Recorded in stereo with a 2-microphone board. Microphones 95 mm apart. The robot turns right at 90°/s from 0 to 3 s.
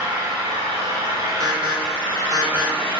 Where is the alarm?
40° right (ahead or behind), 0.5 m; by 3.0 s 10° left (ahead or behind), 0.5 m.